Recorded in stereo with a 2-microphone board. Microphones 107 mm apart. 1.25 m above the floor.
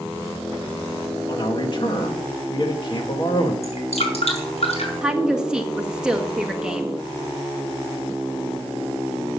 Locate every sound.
1.3 s a man speaking: 45° left (ahead or behind), 2 m
3.6 s dripping: 70° left (ahead or behind), 5 m
5.0 s a woman speaking: 5° right (ahead or behind), 1.7 m